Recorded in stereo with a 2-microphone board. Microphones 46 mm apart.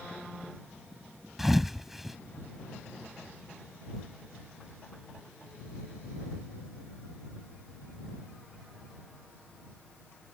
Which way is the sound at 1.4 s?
5° right (ahead or behind).